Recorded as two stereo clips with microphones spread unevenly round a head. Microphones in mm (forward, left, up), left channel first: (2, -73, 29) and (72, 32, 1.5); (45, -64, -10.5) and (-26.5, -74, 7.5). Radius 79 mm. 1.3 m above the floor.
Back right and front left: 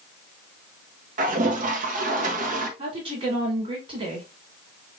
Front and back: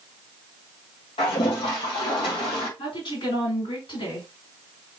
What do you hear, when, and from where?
1.2 s a toilet flushing: 35° left, 1.2 m
2.8 s a woman speaking: 15° left, 3.5 m